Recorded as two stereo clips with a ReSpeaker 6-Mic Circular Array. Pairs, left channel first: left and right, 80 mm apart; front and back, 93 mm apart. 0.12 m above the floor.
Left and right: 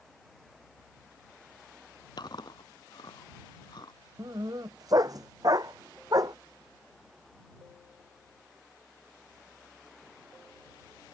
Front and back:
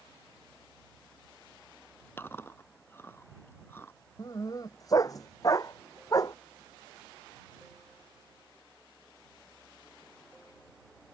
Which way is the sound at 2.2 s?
65° left.